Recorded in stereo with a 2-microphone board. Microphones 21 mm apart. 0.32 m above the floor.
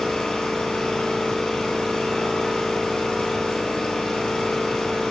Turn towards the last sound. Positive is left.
turn(degrees=65)  # may be behind; listen again after turning